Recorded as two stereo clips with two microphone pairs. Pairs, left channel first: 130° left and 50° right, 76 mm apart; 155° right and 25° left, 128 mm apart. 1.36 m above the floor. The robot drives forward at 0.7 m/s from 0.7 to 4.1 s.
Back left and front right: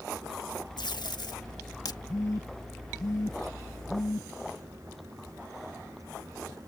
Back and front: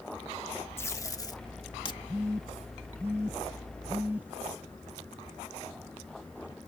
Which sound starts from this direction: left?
A phone buzzing, at 2.1 s.